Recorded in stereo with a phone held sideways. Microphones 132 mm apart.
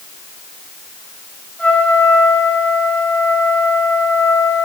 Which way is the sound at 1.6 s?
10° left (ahead or behind).